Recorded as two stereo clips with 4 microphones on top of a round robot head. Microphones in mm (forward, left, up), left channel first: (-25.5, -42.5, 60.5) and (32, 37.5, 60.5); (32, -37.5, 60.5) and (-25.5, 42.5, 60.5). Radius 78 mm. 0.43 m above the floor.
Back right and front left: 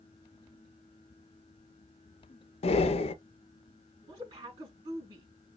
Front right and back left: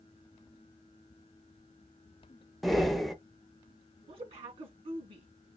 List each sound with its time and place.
2.6 s breathing: 145° right, 0.5 m
4.1 s a woman speaking: 105° left, 4.5 m